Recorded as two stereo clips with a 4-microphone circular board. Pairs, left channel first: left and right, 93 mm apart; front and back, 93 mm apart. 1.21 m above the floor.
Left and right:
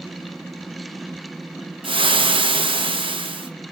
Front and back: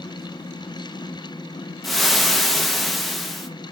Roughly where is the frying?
Right.